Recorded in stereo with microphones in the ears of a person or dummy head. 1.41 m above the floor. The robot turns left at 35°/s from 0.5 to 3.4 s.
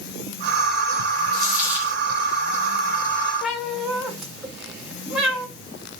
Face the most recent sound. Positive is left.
turn(degrees=0)  # may be behind; listen again after turning